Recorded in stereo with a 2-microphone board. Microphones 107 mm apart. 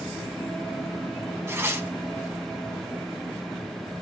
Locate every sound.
1.5 s tearing paper: 25° right (ahead or behind), 0.8 m